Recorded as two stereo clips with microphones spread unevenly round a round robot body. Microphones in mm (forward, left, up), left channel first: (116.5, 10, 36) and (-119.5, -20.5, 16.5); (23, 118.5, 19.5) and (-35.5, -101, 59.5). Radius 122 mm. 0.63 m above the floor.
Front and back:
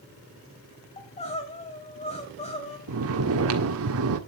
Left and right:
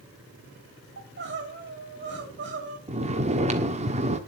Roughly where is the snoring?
Behind.